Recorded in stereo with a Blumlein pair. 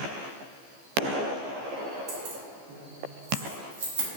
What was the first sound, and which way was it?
Keys jangling, 45° right.